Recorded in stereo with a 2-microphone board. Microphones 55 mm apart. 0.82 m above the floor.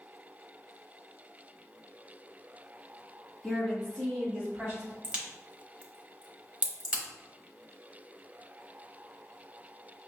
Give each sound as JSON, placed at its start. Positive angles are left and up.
{"t": 3.4, "sound": "a woman speaking", "side_deg": 10, "distance_m": 1.8}
{"t": 5.0, "sound": "a crack", "side_deg": -20, "distance_m": 0.8}